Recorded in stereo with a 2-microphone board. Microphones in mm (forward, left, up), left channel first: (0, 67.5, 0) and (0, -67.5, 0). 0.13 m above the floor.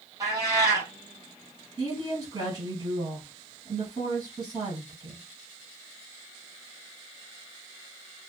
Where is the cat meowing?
25° right (ahead or behind), 2 m.